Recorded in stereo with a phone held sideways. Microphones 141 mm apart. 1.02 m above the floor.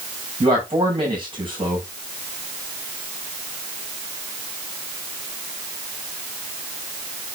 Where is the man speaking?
35° right (ahead or behind), 6.5 m.